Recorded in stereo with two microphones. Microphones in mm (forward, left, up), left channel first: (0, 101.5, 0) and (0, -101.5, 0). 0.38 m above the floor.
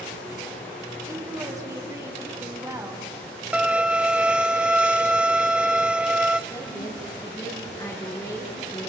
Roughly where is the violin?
Centre.